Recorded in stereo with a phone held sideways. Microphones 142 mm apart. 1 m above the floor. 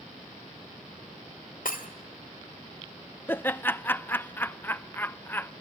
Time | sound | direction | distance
1.6 | breaking glass | 80° left | 2 m
3.3 | laughter | 15° left (ahead or behind) | 0.6 m